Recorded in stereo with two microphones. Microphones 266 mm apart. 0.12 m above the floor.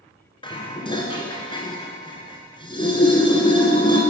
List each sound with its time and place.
0.4 s dishes clattering: 20° left (ahead or behind), 1.0 m